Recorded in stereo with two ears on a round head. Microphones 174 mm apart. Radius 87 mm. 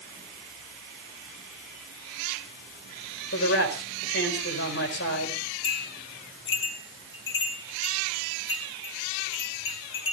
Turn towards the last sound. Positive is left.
turn(degrees=65)  # may be behind; listen again after turning